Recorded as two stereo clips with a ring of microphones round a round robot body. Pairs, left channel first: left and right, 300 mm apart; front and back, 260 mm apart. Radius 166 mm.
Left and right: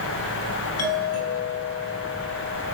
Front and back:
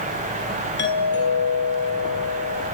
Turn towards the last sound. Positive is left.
turn(degrees=50)